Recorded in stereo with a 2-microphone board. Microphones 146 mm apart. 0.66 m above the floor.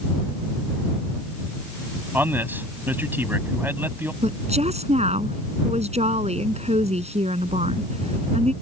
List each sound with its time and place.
2.1 s a man speaking: 15° right (ahead or behind)
4.2 s a woman speaking: 50° right (ahead or behind)